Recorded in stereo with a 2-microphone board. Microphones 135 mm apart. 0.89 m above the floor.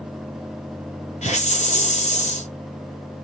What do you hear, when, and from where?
1.2 s a hiss: 60° left (ahead or behind), 6 m